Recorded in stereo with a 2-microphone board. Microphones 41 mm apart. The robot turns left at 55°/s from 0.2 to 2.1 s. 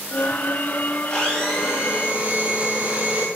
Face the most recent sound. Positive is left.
turn(degrees=-30)